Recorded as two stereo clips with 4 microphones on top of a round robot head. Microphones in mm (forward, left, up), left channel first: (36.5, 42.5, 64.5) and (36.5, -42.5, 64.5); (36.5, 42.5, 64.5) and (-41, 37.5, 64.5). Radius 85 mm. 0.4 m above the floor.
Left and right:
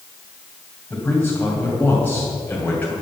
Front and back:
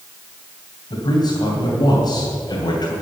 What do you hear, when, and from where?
0.9 s a man speaking: 20° left, 2.5 m